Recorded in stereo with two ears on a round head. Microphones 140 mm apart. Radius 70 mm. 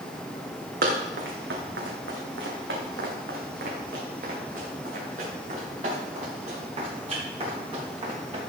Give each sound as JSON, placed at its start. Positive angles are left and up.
{"t": 0.8, "sound": "running footsteps", "side_deg": -70, "distance_m": 3.5}